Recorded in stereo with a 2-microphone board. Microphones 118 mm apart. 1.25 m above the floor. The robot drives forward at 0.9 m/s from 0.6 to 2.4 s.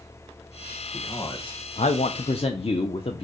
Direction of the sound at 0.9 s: 30° left (ahead or behind).